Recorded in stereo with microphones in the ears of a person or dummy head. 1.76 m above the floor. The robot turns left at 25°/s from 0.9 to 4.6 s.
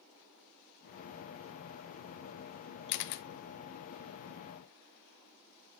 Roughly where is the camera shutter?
Left.